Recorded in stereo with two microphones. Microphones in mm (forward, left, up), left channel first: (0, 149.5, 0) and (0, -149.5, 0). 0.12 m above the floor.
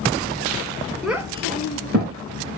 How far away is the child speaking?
About 0.6 m.